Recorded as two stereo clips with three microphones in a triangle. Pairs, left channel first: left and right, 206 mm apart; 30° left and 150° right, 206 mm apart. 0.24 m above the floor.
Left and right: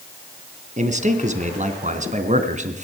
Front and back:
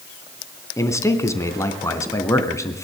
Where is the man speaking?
45° right, 2.5 m.